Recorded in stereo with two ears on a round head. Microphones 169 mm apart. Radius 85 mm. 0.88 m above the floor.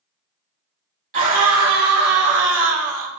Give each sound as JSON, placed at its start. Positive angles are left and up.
{"t": 1.1, "sound": "a scream", "side_deg": -40, "distance_m": 2.5}